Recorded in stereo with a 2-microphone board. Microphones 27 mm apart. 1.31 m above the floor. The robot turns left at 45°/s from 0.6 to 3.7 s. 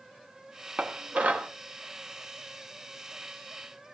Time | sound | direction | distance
0.8 | dishes clattering | 50° right (ahead or behind) | 1.2 m